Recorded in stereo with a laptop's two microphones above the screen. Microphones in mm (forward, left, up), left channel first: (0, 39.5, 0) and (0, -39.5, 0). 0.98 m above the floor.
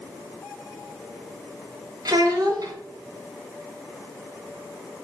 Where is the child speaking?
55° right (ahead or behind), 0.5 m.